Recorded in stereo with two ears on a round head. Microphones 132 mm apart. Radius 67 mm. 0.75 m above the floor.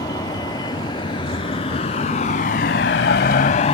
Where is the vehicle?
25° left (ahead or behind); by 3.7 s 45° left (ahead or behind).